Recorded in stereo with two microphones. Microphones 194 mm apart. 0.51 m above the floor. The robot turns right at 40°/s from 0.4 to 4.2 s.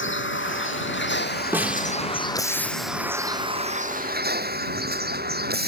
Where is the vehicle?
85° left; by 5.7 s 125° right.